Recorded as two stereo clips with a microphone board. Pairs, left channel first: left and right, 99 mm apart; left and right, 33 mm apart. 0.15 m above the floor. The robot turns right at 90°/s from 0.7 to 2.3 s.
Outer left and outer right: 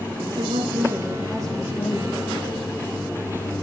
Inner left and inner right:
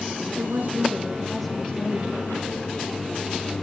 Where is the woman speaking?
65° right, 7 m; by 2.2 s 70° left, 7 m.